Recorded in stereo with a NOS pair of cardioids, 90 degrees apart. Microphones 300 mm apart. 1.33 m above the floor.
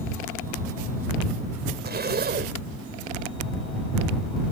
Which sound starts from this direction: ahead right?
A zipper, at 1.9 s.